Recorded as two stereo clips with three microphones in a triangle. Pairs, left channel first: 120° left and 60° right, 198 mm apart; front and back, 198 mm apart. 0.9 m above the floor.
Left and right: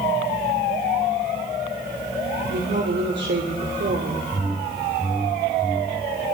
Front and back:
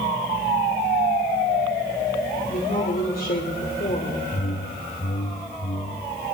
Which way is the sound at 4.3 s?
30° left.